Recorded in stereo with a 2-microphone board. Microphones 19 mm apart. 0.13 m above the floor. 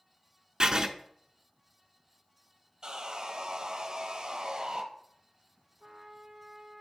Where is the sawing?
40° right (ahead or behind), 1.2 m.